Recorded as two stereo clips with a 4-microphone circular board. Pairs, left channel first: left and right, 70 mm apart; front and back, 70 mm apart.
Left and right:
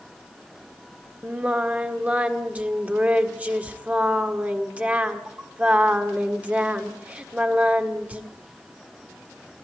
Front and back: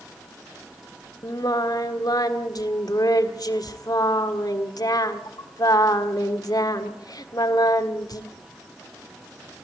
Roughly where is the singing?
Ahead.